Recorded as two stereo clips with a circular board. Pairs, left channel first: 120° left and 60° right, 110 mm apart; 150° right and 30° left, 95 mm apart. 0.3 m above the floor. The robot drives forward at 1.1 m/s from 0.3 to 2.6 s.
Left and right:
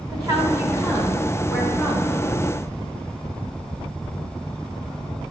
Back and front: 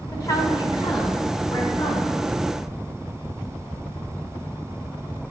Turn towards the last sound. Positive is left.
turn(degrees=-155)